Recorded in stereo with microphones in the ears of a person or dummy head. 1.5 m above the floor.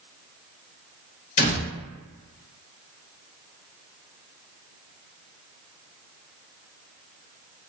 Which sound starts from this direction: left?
A door slam, at 1.4 s.